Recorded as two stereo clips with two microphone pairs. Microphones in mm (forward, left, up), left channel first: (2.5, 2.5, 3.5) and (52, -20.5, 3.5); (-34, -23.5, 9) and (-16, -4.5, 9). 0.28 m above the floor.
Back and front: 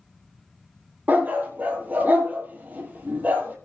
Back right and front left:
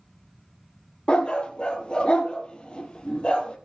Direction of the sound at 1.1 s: 85° right.